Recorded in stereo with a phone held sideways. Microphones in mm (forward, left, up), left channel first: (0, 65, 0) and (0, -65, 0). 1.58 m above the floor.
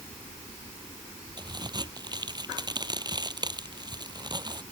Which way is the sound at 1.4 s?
30° right (ahead or behind).